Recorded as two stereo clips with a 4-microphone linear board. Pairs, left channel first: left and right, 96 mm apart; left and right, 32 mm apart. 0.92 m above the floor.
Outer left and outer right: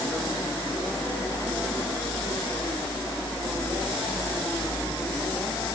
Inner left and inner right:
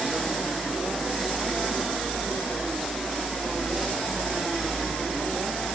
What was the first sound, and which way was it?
Only background noise.